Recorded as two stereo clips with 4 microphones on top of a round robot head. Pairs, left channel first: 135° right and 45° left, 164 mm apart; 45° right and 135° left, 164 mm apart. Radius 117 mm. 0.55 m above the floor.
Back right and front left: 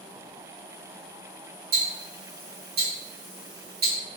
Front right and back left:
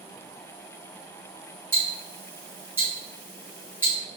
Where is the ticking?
60° left, 1.3 m.